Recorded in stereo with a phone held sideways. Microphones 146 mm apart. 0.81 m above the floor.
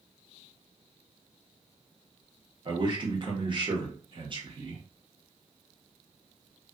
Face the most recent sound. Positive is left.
turn(degrees=-35)  # may be behind; listen again after turning